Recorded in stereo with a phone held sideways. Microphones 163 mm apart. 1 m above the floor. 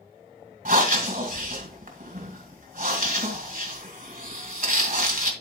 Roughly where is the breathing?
Right.